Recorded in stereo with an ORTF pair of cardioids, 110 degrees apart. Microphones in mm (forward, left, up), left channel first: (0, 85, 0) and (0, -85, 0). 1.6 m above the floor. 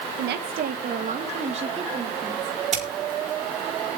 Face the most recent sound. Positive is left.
turn(degrees=-40)